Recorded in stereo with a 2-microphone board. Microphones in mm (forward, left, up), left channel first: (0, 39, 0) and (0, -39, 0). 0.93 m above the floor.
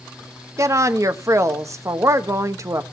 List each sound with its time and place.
0.6 s a woman speaking: 40° right (ahead or behind), 1.2 m